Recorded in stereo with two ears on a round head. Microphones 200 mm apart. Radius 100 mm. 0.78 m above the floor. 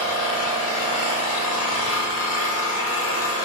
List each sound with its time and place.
0.0 s an engine running: 70° left (ahead or behind), 0.9 m